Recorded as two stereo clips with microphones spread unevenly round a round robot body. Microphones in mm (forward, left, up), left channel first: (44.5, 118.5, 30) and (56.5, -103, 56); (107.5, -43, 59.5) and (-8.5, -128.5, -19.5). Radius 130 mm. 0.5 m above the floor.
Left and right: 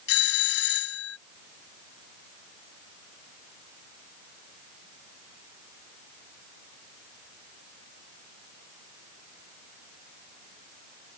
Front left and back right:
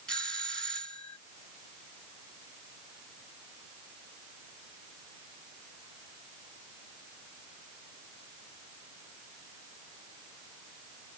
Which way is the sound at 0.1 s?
130° left.